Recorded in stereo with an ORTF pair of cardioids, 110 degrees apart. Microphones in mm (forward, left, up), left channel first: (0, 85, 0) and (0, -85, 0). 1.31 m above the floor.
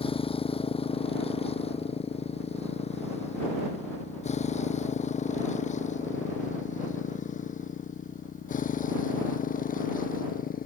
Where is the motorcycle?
30° left; by 10.7 s 50° left.